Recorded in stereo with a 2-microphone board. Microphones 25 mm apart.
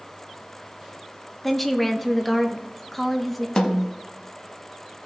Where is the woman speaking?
10° left (ahead or behind), 0.9 m.